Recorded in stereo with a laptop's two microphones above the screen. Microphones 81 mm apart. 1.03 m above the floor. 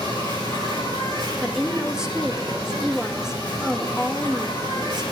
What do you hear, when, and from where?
0.0 s an insect: 60° right (ahead or behind), 7.5 m
1.4 s a woman speaking: 10° right (ahead or behind), 1.6 m